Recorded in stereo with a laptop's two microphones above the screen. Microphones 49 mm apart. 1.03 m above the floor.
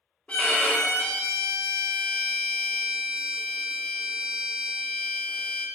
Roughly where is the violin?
Left.